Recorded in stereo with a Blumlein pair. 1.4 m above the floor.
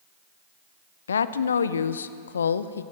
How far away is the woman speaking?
About 0.8 m.